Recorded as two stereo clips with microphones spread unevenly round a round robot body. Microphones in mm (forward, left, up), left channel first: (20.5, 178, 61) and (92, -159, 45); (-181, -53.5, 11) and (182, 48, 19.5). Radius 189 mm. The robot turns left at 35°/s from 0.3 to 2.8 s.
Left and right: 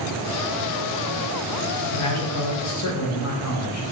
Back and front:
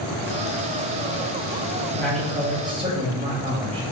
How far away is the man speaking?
About 0.7 m.